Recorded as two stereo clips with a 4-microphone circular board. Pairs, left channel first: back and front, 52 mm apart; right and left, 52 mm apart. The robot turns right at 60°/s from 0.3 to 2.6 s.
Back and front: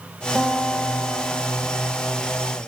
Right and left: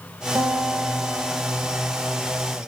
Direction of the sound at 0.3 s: 95° left.